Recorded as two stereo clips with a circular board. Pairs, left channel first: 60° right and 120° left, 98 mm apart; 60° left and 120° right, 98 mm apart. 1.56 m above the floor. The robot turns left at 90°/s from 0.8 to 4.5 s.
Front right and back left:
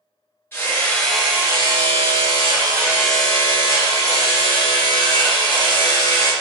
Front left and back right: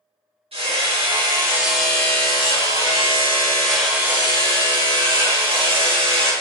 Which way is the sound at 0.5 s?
125° right.